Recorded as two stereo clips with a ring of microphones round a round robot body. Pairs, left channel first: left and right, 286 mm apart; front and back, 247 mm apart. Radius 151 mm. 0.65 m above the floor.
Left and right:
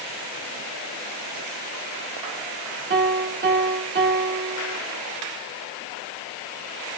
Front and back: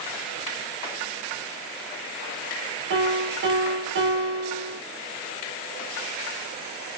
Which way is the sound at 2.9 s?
140° right.